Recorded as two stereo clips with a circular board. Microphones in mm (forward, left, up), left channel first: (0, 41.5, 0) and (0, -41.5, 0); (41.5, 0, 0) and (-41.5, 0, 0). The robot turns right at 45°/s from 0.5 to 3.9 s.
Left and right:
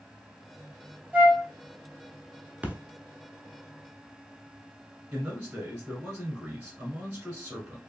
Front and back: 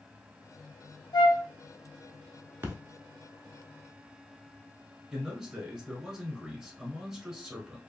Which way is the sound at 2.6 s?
145° right.